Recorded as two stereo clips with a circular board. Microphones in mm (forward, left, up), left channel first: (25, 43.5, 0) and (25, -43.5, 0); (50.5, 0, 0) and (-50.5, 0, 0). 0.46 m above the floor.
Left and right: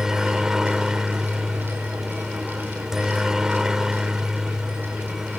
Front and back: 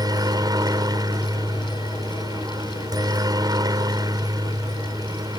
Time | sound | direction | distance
0.0 | a helicopter | 170° right | ?